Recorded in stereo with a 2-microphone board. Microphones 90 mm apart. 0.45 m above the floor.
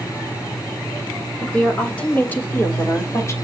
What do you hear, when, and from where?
1.4 s a woman speaking: 10° left (ahead or behind), 1.6 m; by 3.3 s 30° left (ahead or behind), 1.4 m